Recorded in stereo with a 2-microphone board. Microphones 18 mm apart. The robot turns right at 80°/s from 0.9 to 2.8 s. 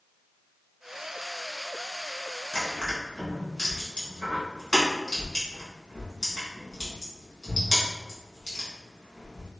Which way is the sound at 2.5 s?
45° left (ahead or behind).